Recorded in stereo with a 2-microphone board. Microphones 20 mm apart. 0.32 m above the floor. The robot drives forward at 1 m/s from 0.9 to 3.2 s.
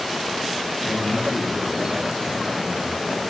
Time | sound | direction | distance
0.8 | a man speaking | 45° left (ahead or behind) | 3.5 m